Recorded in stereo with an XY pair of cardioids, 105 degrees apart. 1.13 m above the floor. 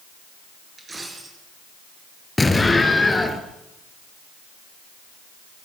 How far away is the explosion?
About 4 m.